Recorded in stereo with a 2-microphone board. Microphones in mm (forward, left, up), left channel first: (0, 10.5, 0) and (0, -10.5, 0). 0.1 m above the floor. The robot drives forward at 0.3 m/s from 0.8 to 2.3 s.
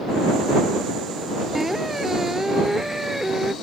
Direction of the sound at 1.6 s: 15° right (ahead or behind).